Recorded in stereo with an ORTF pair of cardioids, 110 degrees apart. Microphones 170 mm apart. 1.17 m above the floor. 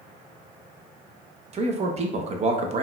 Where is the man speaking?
40° right, 0.7 m.